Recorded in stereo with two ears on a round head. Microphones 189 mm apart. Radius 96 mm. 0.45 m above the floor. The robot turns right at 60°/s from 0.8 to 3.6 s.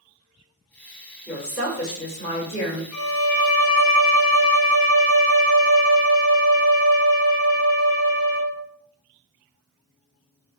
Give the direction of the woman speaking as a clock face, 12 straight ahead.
12 o'clock.